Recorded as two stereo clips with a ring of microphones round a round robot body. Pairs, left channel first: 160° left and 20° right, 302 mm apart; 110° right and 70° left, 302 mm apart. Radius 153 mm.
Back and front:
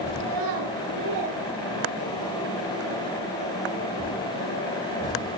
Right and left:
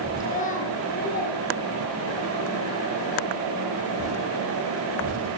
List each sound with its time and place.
0.2 s a child speaking: 45° right, 4 m; by 2.3 s 55° right, 6 m